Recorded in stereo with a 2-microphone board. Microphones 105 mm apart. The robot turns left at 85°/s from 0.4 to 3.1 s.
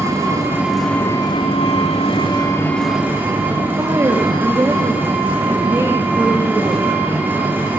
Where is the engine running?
150° right, 2.5 m; by 7.8 s 15° right, 2.5 m.